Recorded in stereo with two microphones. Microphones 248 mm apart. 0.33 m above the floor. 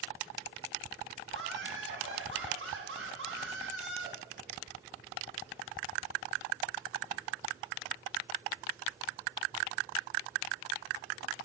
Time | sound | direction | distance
1.3 | laughter | 55° right (ahead or behind) | 2.5 m